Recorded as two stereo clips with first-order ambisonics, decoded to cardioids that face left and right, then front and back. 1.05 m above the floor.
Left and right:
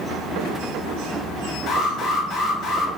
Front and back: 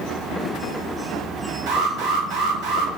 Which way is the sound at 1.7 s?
155° left.